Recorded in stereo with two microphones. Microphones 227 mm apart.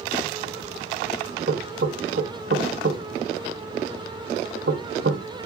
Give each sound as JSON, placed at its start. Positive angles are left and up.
{"t": 1.5, "sound": "knocking", "side_deg": -55, "distance_m": 0.6}